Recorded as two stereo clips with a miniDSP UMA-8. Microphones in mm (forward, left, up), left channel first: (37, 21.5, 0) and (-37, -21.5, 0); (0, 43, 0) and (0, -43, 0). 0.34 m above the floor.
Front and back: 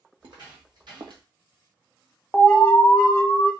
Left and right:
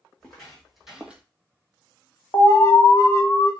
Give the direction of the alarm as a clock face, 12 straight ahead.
9 o'clock.